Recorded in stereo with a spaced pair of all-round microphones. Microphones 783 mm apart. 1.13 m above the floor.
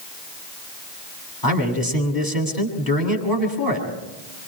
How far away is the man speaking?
About 7.5 m.